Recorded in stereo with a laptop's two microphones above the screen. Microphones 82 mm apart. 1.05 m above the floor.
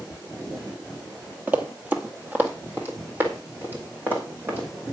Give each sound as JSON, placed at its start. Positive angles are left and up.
{"t": 1.5, "sound": "running footsteps", "side_deg": -20, "distance_m": 1.1}